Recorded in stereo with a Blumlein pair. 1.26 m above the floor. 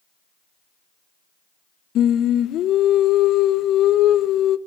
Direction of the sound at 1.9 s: 30° left.